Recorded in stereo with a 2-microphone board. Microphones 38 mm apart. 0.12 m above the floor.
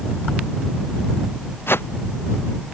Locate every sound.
1.7 s a whoosh: 75° left (ahead or behind)